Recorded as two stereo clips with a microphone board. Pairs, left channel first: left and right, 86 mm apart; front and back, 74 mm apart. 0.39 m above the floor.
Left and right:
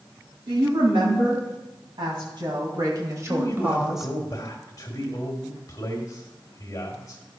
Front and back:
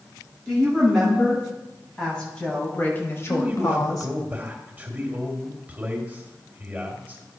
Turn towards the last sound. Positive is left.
turn(degrees=120)